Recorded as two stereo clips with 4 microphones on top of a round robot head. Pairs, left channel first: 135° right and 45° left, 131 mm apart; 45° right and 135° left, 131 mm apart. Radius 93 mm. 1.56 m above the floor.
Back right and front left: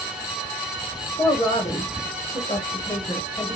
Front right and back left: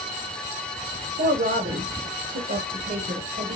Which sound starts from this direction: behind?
A woman speaking, at 1.2 s.